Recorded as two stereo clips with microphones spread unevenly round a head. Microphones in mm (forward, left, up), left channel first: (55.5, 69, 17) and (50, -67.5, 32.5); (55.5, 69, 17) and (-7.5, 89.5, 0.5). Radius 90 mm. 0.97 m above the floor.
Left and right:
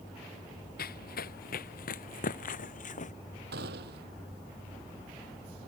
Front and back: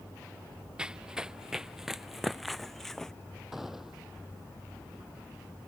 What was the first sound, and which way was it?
Running footsteps, 80° left.